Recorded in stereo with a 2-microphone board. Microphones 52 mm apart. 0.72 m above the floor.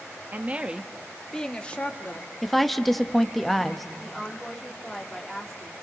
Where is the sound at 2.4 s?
Centre (ahead or behind), 0.9 m.